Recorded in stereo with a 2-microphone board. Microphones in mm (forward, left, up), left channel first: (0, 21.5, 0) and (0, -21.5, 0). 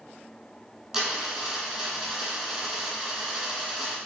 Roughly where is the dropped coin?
Centre.